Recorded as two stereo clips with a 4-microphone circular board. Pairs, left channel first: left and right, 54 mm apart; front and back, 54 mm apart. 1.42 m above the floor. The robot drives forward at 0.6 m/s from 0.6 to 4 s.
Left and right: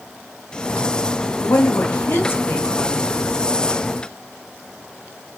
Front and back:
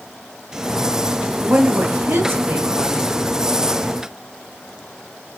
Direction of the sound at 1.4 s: 120° left.